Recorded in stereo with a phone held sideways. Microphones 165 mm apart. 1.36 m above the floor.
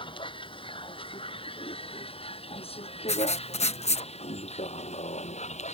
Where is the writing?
40° left (ahead or behind).